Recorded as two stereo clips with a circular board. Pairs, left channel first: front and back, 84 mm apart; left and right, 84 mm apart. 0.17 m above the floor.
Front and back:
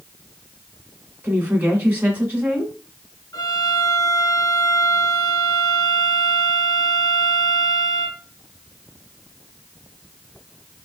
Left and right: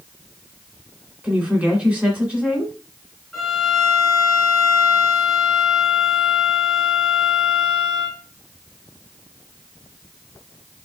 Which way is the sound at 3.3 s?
Straight ahead.